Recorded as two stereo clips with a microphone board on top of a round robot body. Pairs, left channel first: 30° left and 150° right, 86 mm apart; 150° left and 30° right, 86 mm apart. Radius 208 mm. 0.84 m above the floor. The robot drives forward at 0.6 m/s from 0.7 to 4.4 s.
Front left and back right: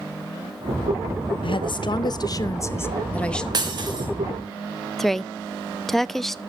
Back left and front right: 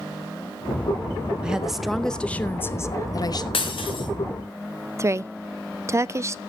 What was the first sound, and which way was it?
A woman speaking, 50° left.